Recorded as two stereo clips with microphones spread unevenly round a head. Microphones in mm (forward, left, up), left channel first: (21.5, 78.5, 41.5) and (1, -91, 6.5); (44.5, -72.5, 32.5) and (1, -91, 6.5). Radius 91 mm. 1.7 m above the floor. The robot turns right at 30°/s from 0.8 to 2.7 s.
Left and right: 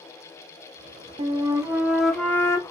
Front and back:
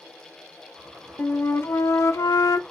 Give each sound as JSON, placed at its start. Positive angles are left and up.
{"t": 1.2, "sound": "a flute", "azimuth_deg": -35, "distance_m": 0.5}